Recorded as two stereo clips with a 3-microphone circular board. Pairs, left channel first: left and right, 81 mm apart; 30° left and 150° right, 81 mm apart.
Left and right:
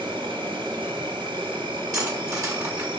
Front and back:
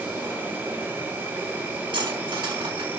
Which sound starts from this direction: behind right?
Cutlery clinking, at 1.9 s.